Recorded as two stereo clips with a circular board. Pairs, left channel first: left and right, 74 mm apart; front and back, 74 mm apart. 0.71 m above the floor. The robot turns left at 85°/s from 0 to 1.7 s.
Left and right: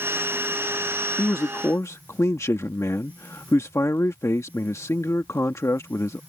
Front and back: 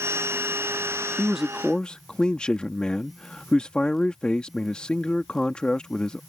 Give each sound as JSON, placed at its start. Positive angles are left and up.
{"t": 1.2, "sound": "a man speaking", "azimuth_deg": 115}